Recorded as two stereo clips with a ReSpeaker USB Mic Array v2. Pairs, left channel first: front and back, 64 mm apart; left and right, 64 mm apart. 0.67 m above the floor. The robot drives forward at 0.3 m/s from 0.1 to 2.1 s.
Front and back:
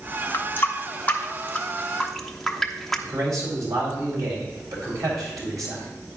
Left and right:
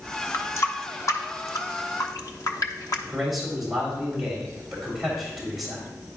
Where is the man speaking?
175° right, 3 m.